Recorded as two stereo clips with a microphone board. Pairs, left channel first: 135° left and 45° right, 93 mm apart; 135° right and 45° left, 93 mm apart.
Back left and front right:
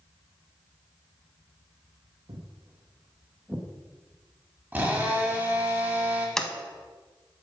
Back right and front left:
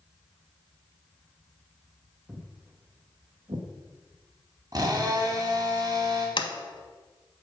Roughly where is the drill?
Ahead.